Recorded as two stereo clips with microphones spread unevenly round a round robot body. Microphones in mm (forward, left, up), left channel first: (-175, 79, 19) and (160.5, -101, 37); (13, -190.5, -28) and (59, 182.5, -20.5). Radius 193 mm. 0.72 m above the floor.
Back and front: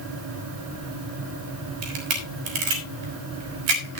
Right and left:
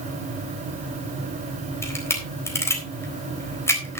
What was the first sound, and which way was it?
A camera shutter, 15° right.